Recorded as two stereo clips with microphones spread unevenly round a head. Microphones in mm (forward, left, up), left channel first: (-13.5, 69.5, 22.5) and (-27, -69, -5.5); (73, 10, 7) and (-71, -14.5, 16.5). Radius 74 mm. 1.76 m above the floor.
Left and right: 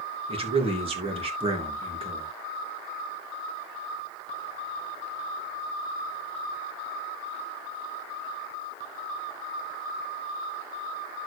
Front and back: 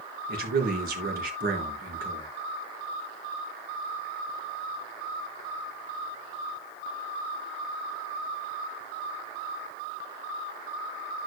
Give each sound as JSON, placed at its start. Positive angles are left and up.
{"t": 0.3, "sound": "a man speaking", "azimuth_deg": -145, "distance_m": 3.0}